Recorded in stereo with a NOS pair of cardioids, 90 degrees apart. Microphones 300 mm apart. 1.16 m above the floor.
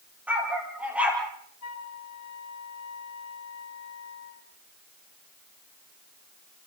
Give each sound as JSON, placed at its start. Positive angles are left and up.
{"t": 0.3, "sound": "a dog barking", "azimuth_deg": -5, "distance_m": 7.5}
{"t": 1.6, "sound": "a flute", "azimuth_deg": 60, "distance_m": 2.0}